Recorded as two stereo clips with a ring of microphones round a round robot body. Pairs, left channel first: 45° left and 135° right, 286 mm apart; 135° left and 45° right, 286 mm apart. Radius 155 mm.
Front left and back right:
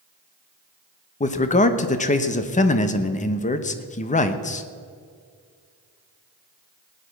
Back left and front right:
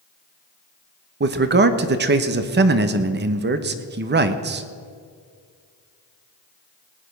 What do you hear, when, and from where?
1.2 s a man speaking: 10° right, 0.9 m